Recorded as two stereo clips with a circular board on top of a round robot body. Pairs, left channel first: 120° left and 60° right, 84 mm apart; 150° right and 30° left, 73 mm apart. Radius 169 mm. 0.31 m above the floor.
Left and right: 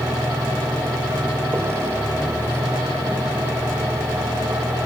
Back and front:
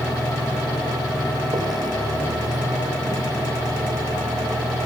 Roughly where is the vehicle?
Ahead.